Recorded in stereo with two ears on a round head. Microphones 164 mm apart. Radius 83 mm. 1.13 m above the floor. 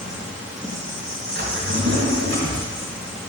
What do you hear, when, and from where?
0.0 s an insect: 5° right (ahead or behind), 2 m
1.4 s a drawer: 70° right (ahead or behind), 2.5 m